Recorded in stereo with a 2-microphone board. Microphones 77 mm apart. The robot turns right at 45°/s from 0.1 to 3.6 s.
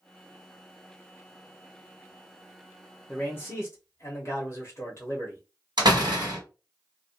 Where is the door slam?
75° right (ahead or behind), 1.3 m.